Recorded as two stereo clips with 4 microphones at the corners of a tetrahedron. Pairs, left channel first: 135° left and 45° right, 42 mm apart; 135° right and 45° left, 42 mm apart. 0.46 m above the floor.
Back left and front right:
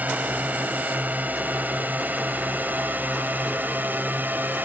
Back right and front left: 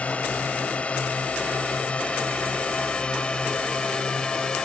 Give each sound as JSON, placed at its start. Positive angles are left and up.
{"t": 0.0, "sound": "a drone", "azimuth_deg": -85}